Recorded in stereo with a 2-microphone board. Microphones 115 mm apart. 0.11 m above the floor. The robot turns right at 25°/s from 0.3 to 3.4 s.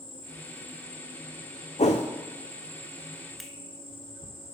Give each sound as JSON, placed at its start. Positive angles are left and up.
{"t": 0.0, "sound": "an insect", "azimuth_deg": 55, "distance_m": 1.8}
{"t": 1.8, "sound": "a whoosh", "side_deg": 75, "distance_m": 1.1}
{"t": 3.4, "sound": "a finger snap", "side_deg": 0, "distance_m": 1.0}